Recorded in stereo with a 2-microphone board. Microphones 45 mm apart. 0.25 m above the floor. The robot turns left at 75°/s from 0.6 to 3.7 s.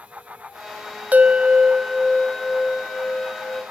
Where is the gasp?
No gasp in this recording.